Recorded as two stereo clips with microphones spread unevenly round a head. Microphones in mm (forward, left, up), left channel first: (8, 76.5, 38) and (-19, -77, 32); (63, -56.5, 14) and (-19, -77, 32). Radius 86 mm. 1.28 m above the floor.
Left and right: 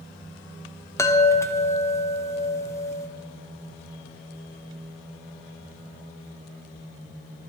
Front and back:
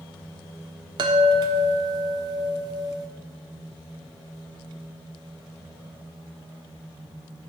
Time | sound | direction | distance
1.0 | a chime | 150° left | 0.5 m